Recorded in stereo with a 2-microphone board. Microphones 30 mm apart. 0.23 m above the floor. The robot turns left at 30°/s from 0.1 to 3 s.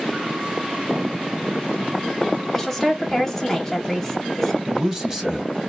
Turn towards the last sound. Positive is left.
turn(degrees=-20)  # may be behind; listen again after turning